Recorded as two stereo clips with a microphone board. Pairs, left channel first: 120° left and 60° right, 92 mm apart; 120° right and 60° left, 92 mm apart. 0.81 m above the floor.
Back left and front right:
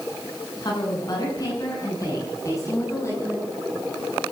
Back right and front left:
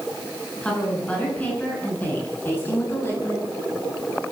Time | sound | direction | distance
0.6 | a woman speaking | 160° left | 9.5 m